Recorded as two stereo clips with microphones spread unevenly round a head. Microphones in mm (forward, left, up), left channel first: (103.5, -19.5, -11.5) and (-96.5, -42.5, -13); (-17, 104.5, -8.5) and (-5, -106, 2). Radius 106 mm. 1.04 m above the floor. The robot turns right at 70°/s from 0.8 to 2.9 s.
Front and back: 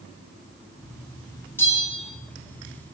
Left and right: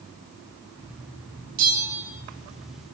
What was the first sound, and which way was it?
A bell, 65° right.